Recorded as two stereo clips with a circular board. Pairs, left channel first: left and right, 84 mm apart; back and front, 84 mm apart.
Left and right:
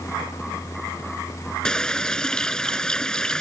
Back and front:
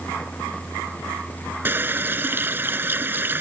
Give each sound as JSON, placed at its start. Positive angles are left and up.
{"t": 1.6, "sound": "a running tap", "azimuth_deg": 20}